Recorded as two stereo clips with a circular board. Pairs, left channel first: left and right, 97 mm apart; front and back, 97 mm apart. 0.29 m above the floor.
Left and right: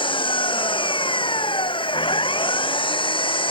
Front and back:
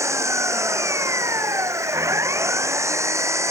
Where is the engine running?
120° left.